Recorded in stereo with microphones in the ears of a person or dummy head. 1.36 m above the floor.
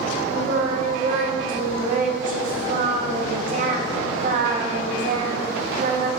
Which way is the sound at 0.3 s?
45° right (ahead or behind).